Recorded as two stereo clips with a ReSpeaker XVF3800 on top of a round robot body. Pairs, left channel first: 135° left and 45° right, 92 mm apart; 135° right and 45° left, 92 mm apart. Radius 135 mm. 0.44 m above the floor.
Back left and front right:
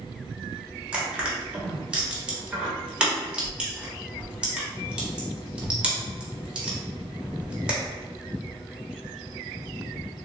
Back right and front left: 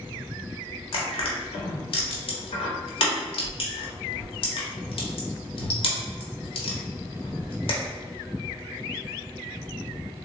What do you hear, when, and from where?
0.9 s crushing: 125° right, 0.9 m